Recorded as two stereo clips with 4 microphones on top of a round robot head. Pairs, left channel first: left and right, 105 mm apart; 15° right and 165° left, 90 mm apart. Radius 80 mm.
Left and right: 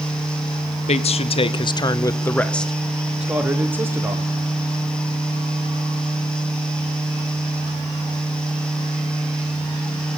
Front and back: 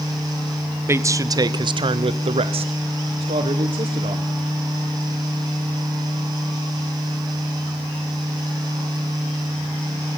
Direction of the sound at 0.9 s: 105° left.